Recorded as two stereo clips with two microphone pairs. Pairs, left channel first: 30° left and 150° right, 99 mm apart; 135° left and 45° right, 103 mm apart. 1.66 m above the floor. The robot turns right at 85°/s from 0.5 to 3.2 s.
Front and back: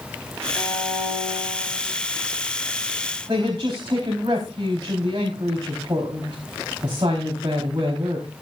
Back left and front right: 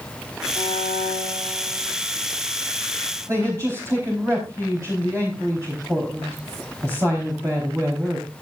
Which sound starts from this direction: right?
A man speaking, at 3.3 s.